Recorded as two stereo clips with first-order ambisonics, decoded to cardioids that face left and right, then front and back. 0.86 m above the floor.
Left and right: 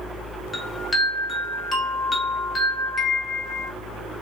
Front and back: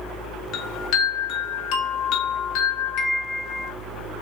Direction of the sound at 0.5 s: 15° left.